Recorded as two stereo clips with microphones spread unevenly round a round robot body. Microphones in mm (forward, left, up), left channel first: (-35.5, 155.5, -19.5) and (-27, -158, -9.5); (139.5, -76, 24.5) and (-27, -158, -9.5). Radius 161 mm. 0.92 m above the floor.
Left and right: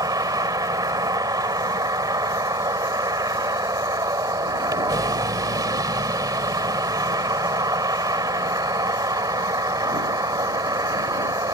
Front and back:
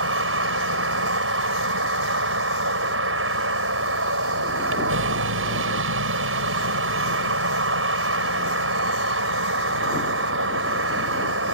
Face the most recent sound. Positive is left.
turn(degrees=-165)